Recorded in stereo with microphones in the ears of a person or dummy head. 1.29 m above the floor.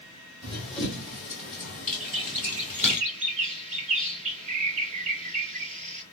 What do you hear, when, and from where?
0.4 s running footsteps: centre (ahead or behind), 2 m; by 3.0 s 10° left (ahead or behind), 1.3 m
2.0 s a bird: 35° right (ahead or behind), 0.7 m